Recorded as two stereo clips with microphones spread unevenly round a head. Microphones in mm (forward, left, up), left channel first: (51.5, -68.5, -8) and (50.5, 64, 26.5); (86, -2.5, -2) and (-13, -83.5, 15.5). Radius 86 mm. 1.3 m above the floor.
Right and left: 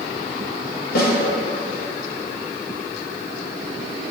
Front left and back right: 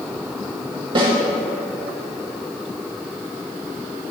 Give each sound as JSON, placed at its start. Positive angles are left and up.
{"t": 0.9, "sound": "a snare drum", "azimuth_deg": -90, "distance_m": 2.0}